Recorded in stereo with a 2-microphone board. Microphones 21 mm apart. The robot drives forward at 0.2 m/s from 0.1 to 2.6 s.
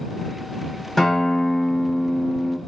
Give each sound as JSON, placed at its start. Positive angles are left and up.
{"t": 1.0, "sound": "a guitar", "side_deg": 10, "distance_m": 0.8}